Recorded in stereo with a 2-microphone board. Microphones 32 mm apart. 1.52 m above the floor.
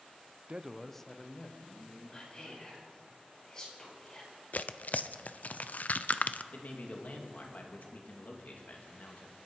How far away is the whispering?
About 5.5 m.